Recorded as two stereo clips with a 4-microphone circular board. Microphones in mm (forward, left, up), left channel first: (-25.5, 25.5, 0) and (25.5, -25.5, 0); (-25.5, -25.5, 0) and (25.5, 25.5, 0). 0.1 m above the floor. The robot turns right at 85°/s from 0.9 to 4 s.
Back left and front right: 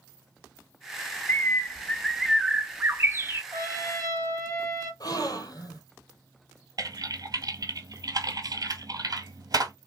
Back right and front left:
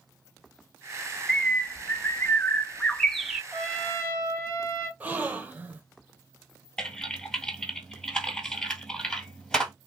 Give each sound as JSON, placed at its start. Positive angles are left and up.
{"t": 1.3, "sound": "a bird", "azimuth_deg": 150, "distance_m": 0.6}
{"t": 3.5, "sound": "a trumpet", "azimuth_deg": 140, "distance_m": 2.5}
{"t": 5.0, "sound": "a gasp", "azimuth_deg": 115, "distance_m": 0.7}
{"t": 6.8, "sound": "typing on a keyboard", "azimuth_deg": -55, "distance_m": 1.7}